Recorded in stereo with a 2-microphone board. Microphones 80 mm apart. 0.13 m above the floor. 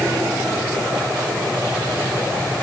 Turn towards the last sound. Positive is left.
No sound to turn to.